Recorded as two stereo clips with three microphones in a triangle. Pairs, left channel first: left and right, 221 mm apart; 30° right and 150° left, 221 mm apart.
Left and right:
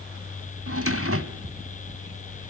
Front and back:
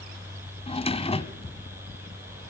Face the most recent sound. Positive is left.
turn(degrees=-95)